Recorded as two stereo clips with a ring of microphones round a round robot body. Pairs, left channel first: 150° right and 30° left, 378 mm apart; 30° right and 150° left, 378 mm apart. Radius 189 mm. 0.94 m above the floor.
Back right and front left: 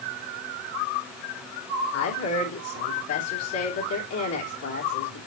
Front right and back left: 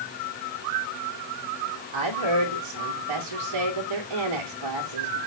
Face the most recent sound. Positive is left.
turn(degrees=160)